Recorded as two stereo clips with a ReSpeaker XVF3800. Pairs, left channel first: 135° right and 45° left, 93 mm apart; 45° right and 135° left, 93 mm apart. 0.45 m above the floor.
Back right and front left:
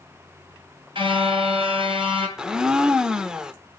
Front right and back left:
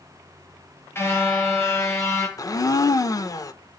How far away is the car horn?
About 4.5 m.